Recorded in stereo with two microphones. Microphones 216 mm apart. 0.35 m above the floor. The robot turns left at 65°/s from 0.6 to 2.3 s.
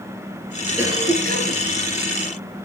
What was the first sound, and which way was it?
A cough, 10° right.